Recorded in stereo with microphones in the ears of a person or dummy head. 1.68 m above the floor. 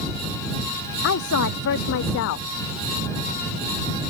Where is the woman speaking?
70° left (ahead or behind).